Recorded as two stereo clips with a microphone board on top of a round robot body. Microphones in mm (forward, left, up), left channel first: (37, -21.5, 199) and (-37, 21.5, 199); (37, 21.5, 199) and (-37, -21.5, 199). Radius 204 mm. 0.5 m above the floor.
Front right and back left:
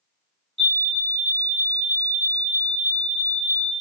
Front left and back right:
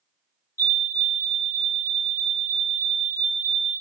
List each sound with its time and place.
0.6 s a fire alarm: 30° left, 1.8 m